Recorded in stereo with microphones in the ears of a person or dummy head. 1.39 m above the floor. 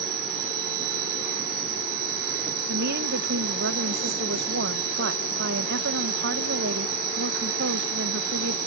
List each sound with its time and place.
0.0 s an insect: 50° right (ahead or behind)
2.7 s a woman speaking: 70° right (ahead or behind)